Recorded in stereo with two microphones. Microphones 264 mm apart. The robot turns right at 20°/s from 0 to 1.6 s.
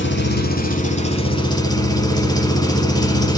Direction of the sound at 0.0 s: 135° left.